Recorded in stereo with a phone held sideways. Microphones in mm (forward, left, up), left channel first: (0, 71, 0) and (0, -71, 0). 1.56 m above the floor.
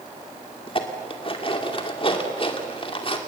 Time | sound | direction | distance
0.7 | dishes clattering | 40° left (ahead or behind) | 2.5 m